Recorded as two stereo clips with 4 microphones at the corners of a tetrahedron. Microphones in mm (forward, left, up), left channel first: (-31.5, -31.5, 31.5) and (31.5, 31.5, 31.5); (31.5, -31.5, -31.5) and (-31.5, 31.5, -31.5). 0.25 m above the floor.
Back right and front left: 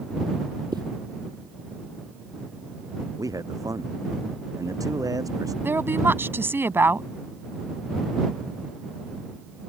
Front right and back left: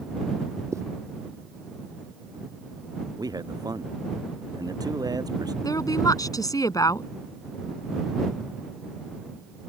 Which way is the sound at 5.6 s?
10° right.